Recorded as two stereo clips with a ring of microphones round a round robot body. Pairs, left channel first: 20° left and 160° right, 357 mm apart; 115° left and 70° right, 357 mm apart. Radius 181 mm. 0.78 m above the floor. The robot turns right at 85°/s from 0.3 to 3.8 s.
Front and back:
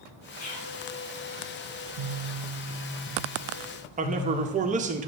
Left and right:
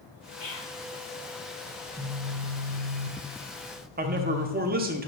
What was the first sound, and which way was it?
Whispering, 60° left.